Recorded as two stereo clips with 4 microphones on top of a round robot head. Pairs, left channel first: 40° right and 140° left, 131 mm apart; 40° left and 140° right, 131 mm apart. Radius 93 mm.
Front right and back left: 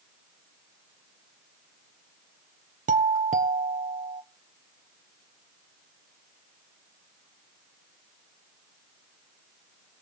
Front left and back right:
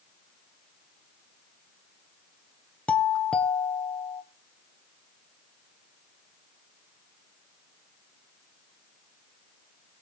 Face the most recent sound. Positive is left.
turn(degrees=125)